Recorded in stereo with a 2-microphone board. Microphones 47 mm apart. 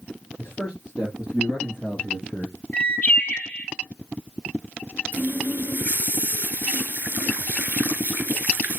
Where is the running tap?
40° right (ahead or behind), 1.1 m.